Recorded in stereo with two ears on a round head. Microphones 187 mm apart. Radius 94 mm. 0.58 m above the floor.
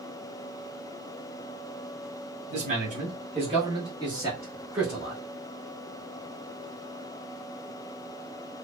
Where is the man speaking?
35° right (ahead or behind), 1.5 m; by 5.2 s 5° right (ahead or behind), 1.3 m.